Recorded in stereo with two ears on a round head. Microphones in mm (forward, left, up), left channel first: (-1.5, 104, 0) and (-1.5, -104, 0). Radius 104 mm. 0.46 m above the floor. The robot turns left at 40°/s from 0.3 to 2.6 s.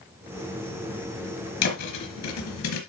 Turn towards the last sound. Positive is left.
turn(degrees=65)  # may be behind; listen again after turning